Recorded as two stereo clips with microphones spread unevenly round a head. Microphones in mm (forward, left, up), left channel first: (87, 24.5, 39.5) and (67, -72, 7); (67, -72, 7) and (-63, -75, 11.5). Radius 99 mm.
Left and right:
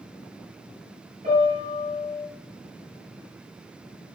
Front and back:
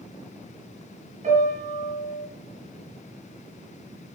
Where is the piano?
155° right, 6.5 m.